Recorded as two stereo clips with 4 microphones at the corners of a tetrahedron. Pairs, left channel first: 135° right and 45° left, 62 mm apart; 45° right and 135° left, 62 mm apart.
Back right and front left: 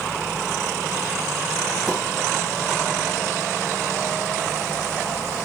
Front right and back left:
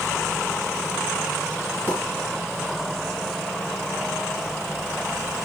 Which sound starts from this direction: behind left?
A pop, at 1.9 s.